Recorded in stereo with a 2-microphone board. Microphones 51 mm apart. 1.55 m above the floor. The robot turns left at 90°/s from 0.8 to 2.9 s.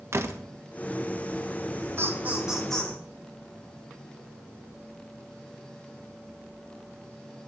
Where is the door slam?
65° right (ahead or behind), 1.3 m.